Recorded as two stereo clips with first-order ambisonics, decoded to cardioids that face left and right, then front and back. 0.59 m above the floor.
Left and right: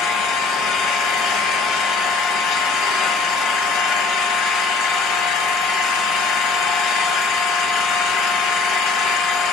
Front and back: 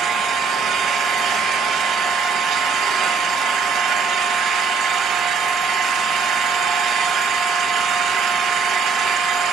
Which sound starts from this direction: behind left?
An engine running, at 0.0 s.